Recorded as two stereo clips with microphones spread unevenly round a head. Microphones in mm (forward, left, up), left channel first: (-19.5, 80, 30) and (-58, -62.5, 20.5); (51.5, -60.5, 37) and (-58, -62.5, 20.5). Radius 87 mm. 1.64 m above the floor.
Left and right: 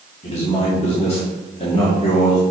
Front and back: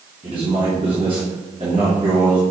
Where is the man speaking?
120° left, 3 m.